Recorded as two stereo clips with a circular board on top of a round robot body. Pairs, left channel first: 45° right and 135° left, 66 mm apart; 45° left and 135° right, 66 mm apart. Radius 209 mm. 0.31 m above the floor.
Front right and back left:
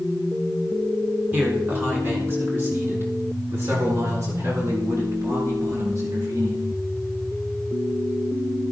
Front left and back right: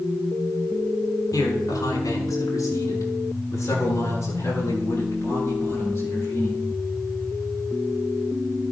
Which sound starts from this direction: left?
A man speaking, at 1.3 s.